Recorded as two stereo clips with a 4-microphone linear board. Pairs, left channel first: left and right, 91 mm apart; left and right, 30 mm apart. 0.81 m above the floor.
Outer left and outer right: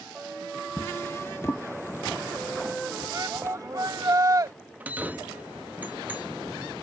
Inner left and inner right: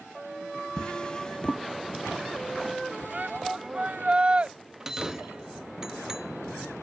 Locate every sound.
0.8 s a drawer: 30° left (ahead or behind)
3.1 s a shout: 40° right (ahead or behind)
4.8 s a bell: 20° right (ahead or behind)